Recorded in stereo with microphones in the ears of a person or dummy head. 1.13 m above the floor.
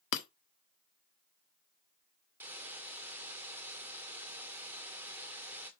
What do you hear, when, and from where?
0.1 s breaking glass: 70° left (ahead or behind), 1.1 m
2.4 s a hiss: 15° right (ahead or behind), 1.6 m